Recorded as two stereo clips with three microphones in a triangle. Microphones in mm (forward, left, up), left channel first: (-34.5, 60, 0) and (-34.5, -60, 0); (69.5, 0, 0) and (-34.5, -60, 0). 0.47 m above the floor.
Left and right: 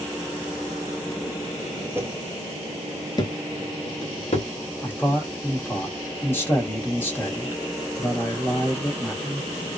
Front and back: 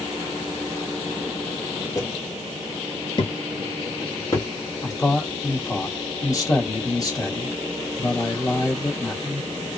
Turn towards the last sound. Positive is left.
turn(degrees=35)